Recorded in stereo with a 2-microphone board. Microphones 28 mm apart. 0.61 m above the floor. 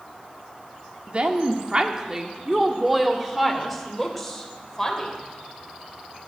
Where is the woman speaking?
40° right (ahead or behind), 1.4 m; by 5.1 s 10° left (ahead or behind), 3 m.